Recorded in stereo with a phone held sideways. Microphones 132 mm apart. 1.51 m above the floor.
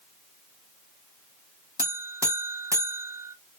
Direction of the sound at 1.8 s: 20° right (ahead or behind).